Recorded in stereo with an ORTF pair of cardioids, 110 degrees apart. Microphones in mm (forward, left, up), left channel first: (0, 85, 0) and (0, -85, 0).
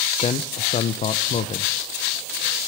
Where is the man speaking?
40° left, 1.0 m.